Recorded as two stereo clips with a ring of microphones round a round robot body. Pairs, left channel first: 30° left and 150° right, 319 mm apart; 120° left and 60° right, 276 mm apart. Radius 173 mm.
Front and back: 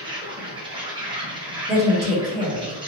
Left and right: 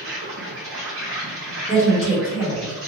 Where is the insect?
80° right, 1.1 m.